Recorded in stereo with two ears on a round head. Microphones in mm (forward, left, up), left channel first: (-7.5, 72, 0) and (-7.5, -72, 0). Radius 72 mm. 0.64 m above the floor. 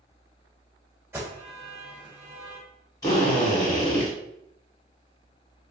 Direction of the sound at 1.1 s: 15° right (ahead or behind).